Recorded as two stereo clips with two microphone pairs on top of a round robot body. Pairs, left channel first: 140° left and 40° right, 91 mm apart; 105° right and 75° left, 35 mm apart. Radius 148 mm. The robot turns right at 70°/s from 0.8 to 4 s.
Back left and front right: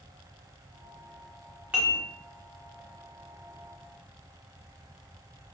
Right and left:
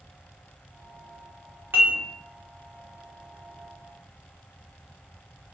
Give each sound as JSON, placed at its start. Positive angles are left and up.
{"t": 1.7, "sound": "dishes clattering", "azimuth_deg": 40, "distance_m": 0.5}